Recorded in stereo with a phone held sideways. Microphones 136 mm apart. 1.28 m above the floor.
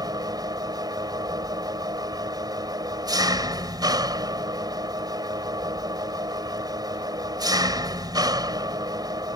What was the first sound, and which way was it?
An engine running, 25° right (ahead or behind).